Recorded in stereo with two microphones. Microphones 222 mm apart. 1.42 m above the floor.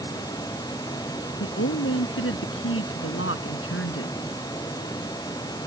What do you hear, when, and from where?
1.4 s a woman speaking: 70° left (ahead or behind)